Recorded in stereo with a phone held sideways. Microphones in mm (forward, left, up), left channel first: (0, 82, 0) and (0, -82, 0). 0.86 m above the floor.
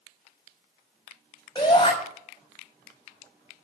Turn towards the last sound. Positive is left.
turn(degrees=25)  # may be behind; listen again after turning